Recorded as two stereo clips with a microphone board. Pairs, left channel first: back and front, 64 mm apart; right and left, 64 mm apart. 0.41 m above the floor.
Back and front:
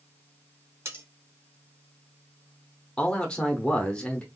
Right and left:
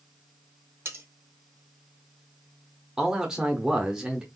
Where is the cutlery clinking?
40° left, 1.8 m.